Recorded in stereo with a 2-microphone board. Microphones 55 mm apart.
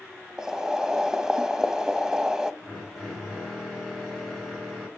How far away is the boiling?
About 0.7 m.